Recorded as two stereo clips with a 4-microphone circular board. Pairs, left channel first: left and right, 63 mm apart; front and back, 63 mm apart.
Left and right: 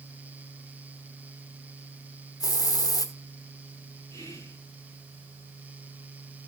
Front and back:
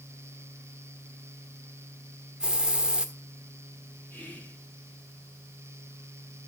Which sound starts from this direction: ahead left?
Whispering, at 4.1 s.